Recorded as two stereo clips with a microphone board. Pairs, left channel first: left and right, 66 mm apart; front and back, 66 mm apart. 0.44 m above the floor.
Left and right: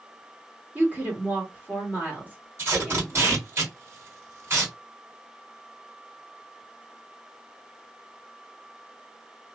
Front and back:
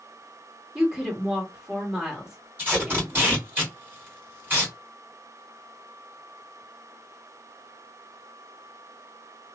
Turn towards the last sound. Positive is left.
turn(degrees=-130)